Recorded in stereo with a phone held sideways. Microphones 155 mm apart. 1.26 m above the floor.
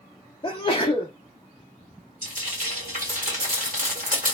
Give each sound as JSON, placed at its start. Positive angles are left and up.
{"t": 0.4, "sound": "a sneeze", "side_deg": 30, "distance_m": 0.6}
{"t": 2.2, "sound": "frying", "side_deg": -65, "distance_m": 1.6}